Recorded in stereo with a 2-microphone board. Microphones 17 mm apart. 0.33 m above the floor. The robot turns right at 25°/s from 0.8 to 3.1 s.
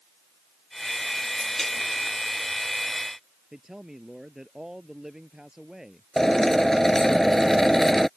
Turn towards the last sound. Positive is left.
turn(degrees=30)  # may be behind; listen again after turning